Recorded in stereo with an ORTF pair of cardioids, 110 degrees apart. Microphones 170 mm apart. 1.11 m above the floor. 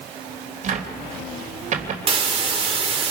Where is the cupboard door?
45° right, 3 m.